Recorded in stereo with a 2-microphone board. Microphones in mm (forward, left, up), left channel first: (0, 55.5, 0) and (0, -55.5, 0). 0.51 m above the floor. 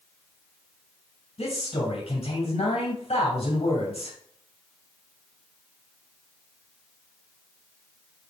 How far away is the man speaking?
About 3 m.